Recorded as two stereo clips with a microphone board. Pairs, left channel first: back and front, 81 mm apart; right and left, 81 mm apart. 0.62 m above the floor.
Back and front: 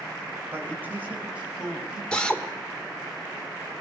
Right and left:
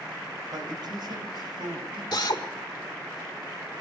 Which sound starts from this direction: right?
A drill, at 2.1 s.